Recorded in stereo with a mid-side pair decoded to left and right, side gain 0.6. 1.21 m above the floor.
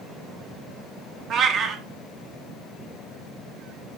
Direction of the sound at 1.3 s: 45° right.